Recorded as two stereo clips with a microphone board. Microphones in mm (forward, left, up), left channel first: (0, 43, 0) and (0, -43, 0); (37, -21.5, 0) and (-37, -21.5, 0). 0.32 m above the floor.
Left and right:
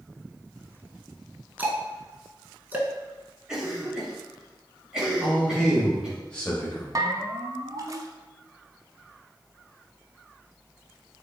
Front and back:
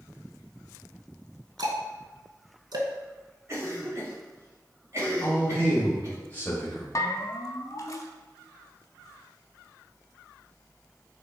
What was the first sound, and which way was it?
Ticking, 160° right.